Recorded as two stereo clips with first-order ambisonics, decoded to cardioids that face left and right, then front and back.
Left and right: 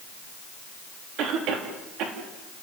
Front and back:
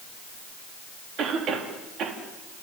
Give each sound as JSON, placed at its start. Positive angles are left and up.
{"t": 1.2, "sound": "a cough", "azimuth_deg": -125, "distance_m": 3.0}